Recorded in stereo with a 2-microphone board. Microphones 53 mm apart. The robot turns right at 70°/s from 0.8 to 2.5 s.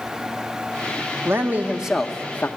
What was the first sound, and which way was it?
A man speaking, 50° right.